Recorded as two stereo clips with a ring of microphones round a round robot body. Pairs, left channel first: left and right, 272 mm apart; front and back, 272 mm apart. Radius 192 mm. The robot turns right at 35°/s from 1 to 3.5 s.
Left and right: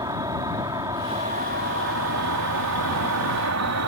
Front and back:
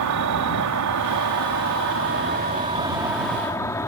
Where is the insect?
170° right; by 3.9 s 80° right.